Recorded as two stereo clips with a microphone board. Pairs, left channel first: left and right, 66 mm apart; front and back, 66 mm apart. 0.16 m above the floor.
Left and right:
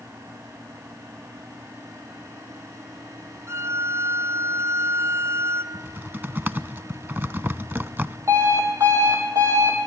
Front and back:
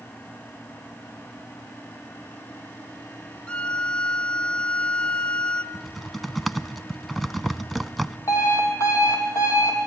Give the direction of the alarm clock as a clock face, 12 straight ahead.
1 o'clock.